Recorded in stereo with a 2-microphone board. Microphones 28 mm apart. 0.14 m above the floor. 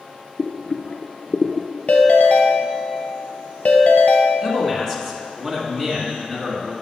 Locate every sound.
0.4 s boiling: 40° left (ahead or behind), 0.5 m
1.9 s a ringtone: 60° left (ahead or behind), 1.1 m
4.4 s a man speaking: 5° left (ahead or behind), 1.8 m